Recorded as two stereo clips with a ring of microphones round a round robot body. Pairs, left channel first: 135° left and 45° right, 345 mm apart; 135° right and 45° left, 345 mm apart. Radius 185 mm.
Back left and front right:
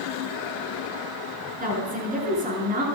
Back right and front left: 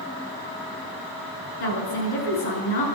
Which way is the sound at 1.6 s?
110° right.